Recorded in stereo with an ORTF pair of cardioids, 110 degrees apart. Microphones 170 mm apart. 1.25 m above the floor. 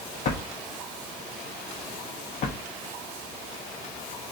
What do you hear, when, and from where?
0.2 s a drawer: 50° left, 1.0 m